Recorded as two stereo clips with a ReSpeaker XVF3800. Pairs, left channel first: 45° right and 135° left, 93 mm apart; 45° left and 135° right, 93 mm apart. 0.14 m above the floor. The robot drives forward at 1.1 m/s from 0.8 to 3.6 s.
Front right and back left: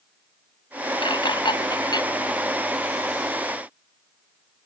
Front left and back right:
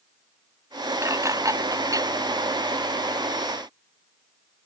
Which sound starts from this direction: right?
Dishes clattering, at 1.0 s.